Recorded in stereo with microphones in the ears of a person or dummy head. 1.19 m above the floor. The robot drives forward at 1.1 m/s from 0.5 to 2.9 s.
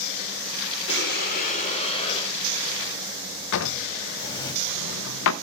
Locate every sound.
0.9 s breathing: 55° left (ahead or behind), 1.1 m; by 4.5 s 20° left (ahead or behind), 3 m
3.5 s a drawer: 70° left (ahead or behind), 0.7 m